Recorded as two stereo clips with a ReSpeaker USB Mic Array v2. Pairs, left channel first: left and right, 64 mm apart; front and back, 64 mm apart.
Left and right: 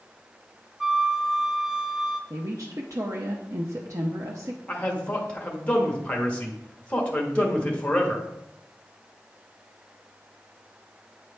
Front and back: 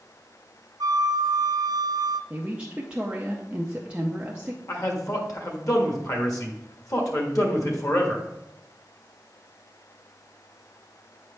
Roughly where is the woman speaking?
Right.